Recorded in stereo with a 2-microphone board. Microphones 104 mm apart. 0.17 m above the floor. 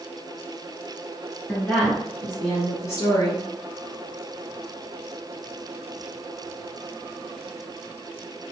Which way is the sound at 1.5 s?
10° left (ahead or behind).